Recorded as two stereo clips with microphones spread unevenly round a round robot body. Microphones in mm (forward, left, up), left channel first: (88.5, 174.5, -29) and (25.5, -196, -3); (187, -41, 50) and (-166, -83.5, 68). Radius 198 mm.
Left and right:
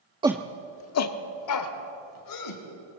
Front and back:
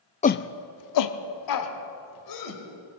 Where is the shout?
30° right, 0.5 m; by 2.6 s 45° left, 3 m.